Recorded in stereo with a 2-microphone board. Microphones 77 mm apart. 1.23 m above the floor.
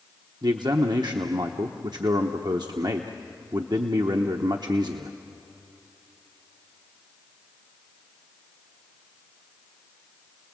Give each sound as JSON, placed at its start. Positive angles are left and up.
{"t": 0.4, "sound": "a man speaking", "side_deg": -65, "distance_m": 1.0}